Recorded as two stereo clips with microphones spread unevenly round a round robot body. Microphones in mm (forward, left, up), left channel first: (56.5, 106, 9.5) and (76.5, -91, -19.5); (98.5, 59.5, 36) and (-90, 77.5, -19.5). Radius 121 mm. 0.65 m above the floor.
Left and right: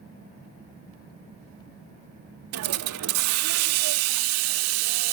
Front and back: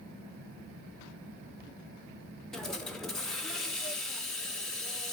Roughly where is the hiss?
Right.